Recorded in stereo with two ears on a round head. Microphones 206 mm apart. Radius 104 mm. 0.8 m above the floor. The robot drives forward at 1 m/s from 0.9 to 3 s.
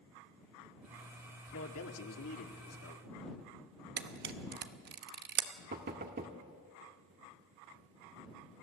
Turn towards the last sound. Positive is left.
turn(degrees=-45)  # may be behind; listen again after turning